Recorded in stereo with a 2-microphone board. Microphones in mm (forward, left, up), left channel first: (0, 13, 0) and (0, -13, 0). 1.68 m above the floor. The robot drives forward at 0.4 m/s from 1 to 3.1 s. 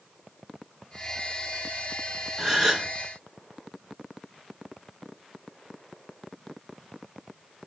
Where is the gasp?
25° right (ahead or behind), 1.3 m; by 2.9 s 20° right (ahead or behind), 1.4 m.